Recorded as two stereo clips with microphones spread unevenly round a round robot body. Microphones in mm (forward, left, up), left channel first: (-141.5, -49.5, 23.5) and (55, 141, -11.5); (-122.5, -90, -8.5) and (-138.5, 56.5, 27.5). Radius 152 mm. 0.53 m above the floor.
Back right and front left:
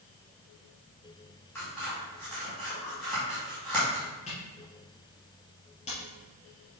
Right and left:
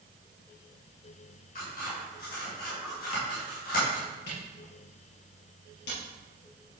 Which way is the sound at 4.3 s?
65° right.